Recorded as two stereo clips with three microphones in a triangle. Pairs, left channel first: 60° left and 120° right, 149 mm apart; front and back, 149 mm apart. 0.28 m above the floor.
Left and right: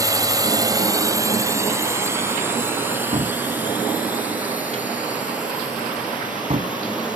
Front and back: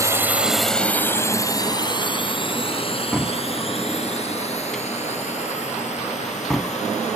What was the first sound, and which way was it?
A drone, 145° right.